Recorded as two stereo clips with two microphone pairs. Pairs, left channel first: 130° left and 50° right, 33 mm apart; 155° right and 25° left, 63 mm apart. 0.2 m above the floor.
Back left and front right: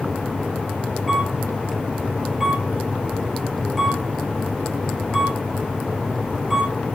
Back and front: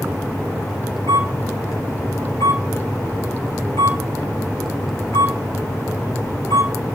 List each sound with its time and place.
1.1 s a camera shutter: 140° right, 3.5 m